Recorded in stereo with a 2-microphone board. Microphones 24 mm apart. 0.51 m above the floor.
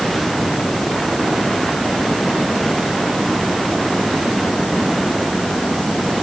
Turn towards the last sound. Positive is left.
No sound to turn to.